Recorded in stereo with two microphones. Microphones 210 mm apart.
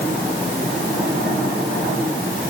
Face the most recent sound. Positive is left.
No sound to turn to.